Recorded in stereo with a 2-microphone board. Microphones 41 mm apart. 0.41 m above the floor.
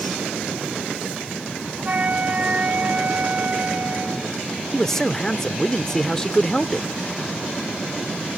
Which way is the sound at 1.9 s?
35° right (ahead or behind).